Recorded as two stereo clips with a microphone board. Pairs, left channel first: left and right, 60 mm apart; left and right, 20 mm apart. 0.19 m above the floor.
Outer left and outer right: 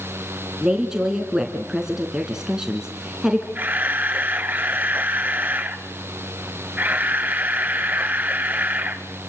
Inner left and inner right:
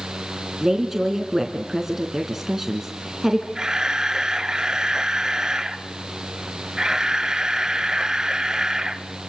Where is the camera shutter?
30° right (ahead or behind), 1.6 m.